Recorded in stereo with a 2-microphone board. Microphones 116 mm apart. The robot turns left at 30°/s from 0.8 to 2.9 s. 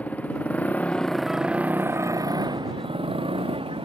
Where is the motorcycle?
10° left; by 3.8 s 50° right.